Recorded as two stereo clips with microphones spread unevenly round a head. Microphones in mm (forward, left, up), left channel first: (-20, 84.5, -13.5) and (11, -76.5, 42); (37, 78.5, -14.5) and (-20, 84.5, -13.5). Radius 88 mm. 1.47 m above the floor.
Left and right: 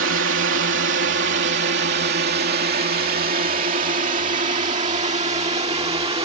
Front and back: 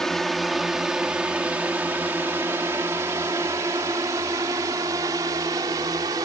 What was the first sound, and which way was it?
A drone, 95° right.